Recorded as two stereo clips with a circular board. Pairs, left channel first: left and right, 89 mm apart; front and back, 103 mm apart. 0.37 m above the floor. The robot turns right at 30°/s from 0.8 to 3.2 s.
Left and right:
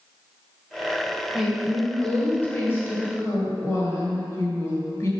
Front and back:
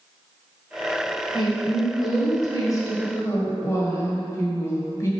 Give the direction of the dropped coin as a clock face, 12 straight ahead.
No dropped coin in this recording.